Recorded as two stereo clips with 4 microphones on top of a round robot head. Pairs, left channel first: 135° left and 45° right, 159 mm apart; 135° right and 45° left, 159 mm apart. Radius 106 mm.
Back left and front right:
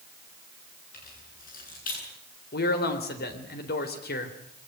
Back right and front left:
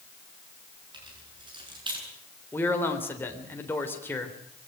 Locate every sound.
0.9 s keys jangling: 105° left, 9.5 m
2.5 s a man speaking: 145° left, 3.5 m